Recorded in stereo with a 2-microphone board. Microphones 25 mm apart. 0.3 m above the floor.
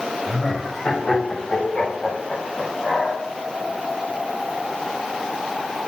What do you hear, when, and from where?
0.3 s laughter: 25° left (ahead or behind), 1.6 m; by 3.2 s 50° left (ahead or behind), 2 m